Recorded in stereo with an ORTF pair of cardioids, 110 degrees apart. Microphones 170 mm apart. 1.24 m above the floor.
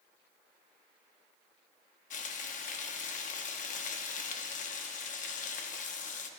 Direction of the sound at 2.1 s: 50° left.